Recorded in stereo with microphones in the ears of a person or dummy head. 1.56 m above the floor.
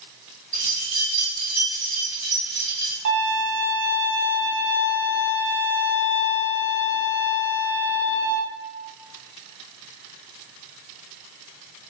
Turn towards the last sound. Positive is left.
turn(degrees=-75)  # may be behind; listen again after turning